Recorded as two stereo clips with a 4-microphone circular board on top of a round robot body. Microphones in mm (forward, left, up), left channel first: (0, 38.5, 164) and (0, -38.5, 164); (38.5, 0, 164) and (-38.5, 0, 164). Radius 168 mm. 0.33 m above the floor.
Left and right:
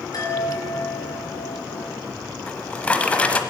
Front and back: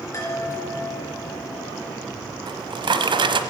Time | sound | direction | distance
0.1 | a chime | 50° left | 4 m
2.5 | a drawer | 165° left | 1.1 m